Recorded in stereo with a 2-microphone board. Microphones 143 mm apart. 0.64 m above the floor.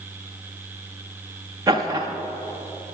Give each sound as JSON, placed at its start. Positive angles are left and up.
{"t": 1.7, "sound": "laughter", "side_deg": -25, "distance_m": 0.5}